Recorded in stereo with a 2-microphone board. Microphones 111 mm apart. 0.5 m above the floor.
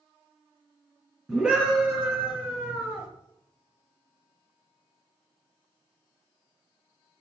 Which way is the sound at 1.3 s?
10° right (ahead or behind).